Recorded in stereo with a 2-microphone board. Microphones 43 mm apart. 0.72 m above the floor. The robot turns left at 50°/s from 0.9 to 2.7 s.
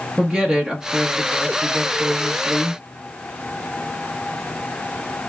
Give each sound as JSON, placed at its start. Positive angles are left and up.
{"t": 0.2, "sound": "a woman speaking", "side_deg": -15, "distance_m": 0.9}